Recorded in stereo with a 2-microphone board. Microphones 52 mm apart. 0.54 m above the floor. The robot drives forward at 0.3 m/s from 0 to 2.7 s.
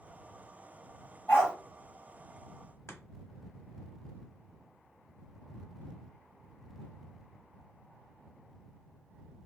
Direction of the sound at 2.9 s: 60° left (ahead or behind).